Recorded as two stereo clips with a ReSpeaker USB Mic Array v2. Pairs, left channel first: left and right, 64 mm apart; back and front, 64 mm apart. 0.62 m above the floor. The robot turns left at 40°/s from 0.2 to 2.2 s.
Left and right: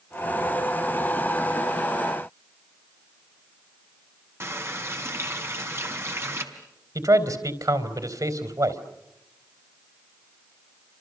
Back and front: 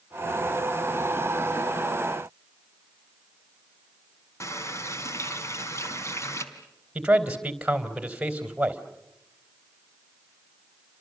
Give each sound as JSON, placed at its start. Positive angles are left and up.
{"t": 4.4, "sound": "a running tap", "azimuth_deg": -140, "distance_m": 3.5}
{"t": 7.0, "sound": "a man speaking", "azimuth_deg": -75, "distance_m": 3.5}